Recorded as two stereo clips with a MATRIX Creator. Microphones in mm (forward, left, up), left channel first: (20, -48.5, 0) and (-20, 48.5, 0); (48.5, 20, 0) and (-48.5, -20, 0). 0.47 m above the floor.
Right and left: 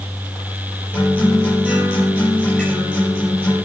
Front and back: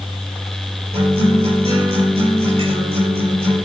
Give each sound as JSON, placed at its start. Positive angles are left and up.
{"t": 0.9, "sound": "a guitar", "azimuth_deg": -140, "distance_m": 7.0}